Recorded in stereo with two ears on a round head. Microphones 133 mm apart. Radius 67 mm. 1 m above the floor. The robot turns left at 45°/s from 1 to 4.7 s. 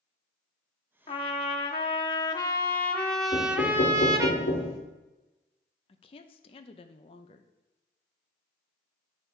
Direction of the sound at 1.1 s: 100° left.